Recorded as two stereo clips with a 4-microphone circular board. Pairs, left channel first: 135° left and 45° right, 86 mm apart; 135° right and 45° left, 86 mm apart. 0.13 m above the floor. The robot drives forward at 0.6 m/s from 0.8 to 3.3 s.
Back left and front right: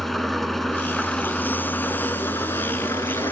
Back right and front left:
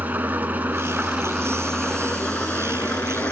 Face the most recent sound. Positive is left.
turn(degrees=165)